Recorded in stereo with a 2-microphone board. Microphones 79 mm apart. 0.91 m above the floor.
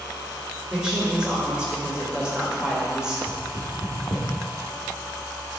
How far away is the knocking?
About 1.5 m.